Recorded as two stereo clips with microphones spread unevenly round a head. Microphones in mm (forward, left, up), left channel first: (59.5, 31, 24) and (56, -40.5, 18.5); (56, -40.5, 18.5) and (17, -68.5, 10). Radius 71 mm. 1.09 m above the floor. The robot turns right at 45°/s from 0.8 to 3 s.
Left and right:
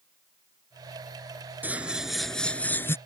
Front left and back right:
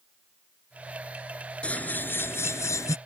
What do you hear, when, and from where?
1.6 s scissors: 25° right; by 3.0 s 35° left